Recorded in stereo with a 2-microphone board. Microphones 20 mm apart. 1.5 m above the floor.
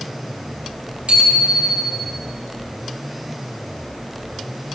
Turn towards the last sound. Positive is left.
turn(degrees=-70)  # may be behind; listen again after turning